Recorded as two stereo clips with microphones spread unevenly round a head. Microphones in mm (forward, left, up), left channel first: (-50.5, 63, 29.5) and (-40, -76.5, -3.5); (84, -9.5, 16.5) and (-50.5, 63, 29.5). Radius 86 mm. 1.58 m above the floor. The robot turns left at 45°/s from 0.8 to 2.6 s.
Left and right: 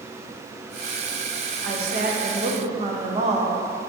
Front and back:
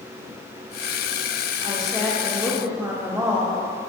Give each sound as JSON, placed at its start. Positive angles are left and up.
{"t": 1.6, "sound": "a woman speaking", "azimuth_deg": -90, "distance_m": 0.9}